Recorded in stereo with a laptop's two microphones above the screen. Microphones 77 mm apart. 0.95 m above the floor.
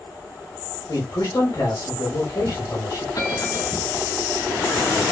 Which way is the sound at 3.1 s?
45° left (ahead or behind).